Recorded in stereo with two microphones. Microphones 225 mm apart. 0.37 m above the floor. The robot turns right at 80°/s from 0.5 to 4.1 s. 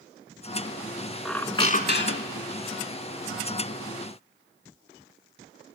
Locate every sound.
1.2 s a squeak: straight ahead, 0.5 m; by 2.5 s 95° left, 0.5 m